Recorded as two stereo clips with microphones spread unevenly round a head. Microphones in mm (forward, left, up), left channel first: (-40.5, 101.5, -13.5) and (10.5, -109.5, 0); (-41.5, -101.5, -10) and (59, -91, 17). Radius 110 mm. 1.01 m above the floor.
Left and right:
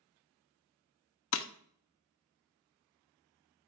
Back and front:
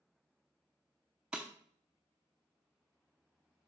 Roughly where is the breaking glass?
Left.